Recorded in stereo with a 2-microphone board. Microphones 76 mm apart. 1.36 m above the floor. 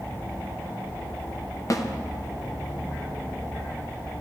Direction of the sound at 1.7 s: 45° left (ahead or behind).